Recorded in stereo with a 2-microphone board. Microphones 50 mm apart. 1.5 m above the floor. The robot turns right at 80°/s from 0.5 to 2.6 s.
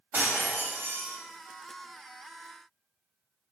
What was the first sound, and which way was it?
Breaking glass, 125° right.